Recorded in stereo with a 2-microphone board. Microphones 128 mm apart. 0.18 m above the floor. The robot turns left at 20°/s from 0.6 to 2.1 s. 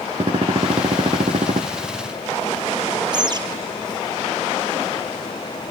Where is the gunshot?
45° right (ahead or behind), 2.5 m; by 1.6 s 65° right (ahead or behind), 2.5 m.